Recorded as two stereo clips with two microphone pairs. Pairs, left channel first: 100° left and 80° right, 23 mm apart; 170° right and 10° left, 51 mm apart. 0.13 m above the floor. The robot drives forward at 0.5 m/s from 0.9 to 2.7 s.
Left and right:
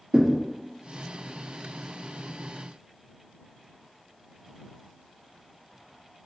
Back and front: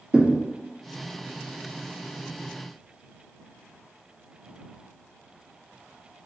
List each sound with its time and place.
0.1 s a thud: 60° right, 2 m